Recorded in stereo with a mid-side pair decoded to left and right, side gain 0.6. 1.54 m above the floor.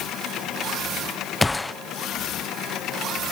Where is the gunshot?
10° left, 0.7 m.